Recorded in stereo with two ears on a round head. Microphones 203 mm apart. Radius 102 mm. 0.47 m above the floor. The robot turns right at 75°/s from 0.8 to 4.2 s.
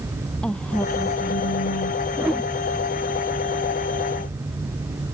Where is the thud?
I don't hear a thud.